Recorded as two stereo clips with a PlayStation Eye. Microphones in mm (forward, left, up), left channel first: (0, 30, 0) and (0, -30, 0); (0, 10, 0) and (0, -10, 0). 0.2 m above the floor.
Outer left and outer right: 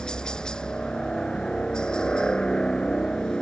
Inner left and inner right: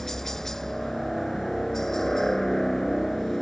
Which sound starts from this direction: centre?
A helicopter, at 0.0 s.